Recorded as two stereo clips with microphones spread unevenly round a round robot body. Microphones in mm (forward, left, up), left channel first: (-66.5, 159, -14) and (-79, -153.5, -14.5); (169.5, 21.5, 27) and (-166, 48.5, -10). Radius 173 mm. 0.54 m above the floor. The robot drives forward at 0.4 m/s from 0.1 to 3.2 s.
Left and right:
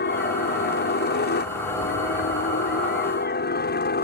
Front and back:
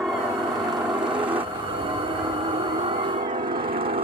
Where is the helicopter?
90° left; by 4.0 s 120° left.